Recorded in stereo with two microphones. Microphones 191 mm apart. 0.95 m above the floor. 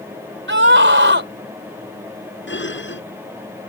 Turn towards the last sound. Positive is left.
turn(degrees=80)